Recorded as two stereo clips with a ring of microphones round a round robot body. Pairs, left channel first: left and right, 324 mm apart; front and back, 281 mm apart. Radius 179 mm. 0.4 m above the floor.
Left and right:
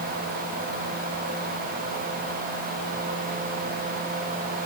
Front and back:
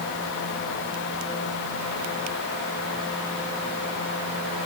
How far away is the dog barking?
No dog barking in this recording.